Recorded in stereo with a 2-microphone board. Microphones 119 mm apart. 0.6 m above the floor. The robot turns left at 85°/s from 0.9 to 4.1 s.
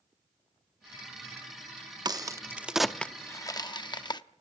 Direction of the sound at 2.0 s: 35° right (ahead or behind).